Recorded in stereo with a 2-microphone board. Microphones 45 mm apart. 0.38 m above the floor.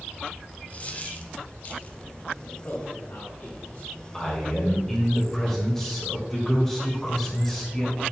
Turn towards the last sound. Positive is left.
turn(degrees=10)  # may be behind; listen again after turning